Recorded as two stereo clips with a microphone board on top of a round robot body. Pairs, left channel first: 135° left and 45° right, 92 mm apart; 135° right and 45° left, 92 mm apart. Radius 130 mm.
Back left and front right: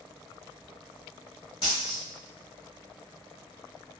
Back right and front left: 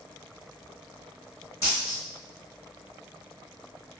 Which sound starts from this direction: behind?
A dropped coin, at 1.6 s.